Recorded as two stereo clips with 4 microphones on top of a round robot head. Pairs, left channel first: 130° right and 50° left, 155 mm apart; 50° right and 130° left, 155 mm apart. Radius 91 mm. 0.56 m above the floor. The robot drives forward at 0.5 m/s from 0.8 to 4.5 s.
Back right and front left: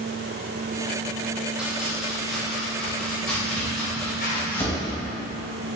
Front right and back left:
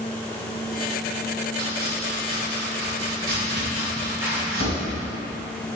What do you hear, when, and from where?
1.6 s chopping: 130° left, 2.5 m; by 4.8 s 150° left, 3.5 m
4.2 s a zipper: 150° right, 3 m